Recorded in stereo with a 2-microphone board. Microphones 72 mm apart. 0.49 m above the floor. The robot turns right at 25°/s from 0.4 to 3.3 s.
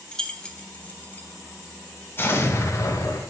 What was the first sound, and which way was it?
Keys jangling, 10° left (ahead or behind).